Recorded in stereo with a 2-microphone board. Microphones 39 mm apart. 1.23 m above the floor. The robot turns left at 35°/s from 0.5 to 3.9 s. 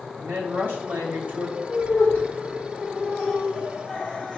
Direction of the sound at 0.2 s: 90° right.